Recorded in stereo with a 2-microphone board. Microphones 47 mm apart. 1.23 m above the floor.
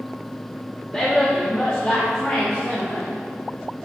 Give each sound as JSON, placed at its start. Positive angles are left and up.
{"t": 0.9, "sound": "a woman speaking", "side_deg": 20, "distance_m": 1.7}